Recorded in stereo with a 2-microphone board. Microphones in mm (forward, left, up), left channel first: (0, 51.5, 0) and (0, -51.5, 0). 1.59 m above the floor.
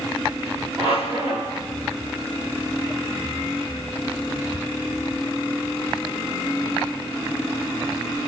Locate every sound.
0.8 s a squeak: 70° right (ahead or behind), 2.5 m